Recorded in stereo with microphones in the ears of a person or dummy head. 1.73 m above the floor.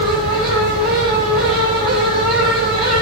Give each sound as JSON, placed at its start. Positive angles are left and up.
{"t": 0.0, "sound": "a fan", "side_deg": 25, "distance_m": 7.5}